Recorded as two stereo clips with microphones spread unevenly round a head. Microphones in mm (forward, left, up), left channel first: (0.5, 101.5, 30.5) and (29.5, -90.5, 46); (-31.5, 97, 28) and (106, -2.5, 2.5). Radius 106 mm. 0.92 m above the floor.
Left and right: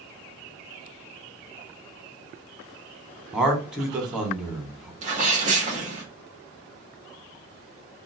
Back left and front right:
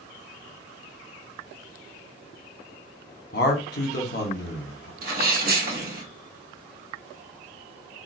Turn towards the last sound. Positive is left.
turn(degrees=-30)